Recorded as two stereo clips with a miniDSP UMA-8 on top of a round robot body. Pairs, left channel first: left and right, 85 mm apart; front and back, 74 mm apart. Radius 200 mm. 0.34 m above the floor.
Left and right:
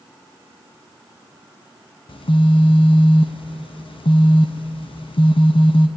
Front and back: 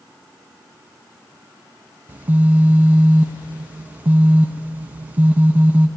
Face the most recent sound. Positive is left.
turn(degrees=110)